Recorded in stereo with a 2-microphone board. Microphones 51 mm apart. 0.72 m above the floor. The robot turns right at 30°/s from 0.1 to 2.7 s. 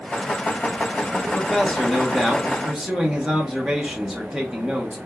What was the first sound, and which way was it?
A man speaking, 15° left (ahead or behind).